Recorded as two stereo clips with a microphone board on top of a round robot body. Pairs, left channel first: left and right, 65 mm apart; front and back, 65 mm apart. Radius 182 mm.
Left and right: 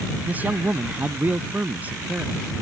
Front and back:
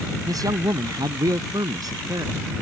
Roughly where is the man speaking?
Behind right.